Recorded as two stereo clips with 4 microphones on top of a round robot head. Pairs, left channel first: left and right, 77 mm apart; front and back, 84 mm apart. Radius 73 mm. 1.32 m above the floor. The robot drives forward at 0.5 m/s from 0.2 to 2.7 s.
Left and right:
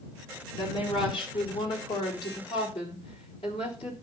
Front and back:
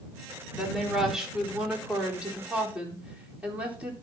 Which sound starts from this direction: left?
A woman speaking, at 0.5 s.